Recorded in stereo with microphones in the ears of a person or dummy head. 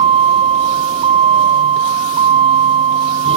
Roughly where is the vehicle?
Right.